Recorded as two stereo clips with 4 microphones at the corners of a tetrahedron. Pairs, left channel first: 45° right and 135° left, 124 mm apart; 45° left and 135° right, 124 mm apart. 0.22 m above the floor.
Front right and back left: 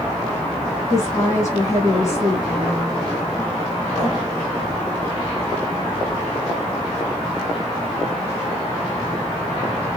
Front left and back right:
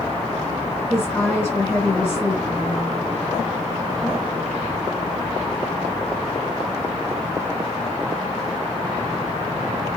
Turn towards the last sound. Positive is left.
turn(degrees=-15)